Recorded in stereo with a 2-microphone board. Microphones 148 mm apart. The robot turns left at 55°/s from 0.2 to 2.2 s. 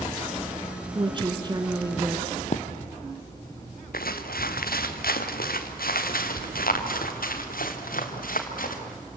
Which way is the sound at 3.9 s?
80° left.